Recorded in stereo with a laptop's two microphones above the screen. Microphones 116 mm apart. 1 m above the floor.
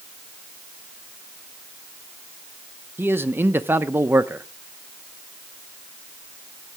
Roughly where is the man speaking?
Centre.